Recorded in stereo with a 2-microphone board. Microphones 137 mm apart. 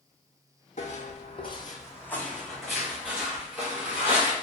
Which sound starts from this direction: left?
Footsteps, at 0.8 s.